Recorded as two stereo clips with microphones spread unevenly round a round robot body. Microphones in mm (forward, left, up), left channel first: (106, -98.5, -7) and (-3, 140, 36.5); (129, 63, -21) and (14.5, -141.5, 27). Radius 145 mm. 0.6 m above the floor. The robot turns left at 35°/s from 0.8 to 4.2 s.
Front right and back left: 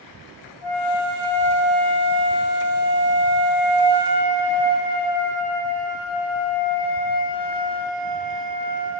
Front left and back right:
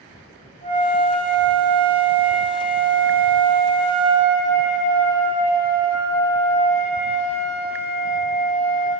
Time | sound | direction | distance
0.6 | a flute | 140° left | 3 m